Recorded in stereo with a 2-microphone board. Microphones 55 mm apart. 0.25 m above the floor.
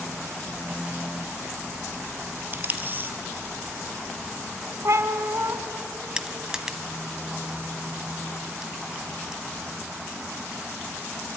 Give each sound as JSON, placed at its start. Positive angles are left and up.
{"t": 2.5, "sound": "tape being pulled", "side_deg": -35, "distance_m": 1.6}
{"t": 4.8, "sound": "a cat meowing", "side_deg": -60, "distance_m": 1.2}
{"t": 6.2, "sound": "crushing", "side_deg": -10, "distance_m": 1.4}